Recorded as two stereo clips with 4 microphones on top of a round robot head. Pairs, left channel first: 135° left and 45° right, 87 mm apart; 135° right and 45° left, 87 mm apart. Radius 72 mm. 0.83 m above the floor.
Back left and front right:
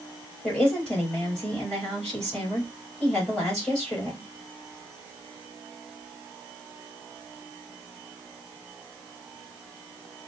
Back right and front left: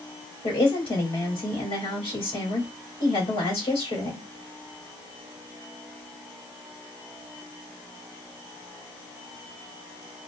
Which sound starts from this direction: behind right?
A woman speaking, at 0.4 s.